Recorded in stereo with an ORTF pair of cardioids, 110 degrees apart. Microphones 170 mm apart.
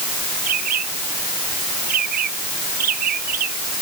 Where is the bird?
60° right.